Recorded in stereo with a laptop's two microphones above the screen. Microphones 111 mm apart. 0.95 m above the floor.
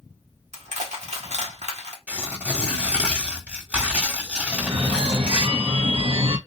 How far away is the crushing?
About 1.0 m.